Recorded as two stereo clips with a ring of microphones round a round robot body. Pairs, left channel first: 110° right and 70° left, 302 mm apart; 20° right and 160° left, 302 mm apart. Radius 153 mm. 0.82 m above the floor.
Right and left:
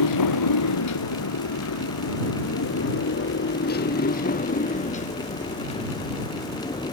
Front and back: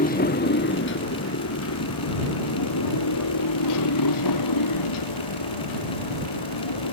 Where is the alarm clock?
No alarm clock in this recording.